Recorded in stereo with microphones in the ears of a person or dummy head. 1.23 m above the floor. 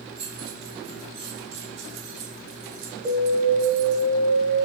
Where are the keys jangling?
25° right (ahead or behind), 5 m; by 4.0 s 65° right (ahead or behind), 2.5 m.